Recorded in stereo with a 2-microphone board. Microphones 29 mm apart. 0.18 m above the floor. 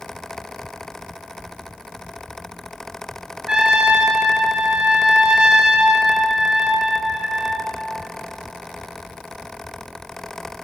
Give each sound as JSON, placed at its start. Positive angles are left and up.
{"t": 3.5, "sound": "a trumpet", "side_deg": -20, "distance_m": 1.4}